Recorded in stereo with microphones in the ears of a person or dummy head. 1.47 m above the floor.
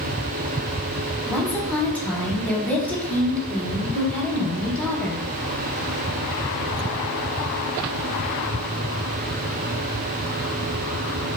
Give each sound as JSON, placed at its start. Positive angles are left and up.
{"t": 1.3, "sound": "a woman speaking", "side_deg": 5, "distance_m": 0.6}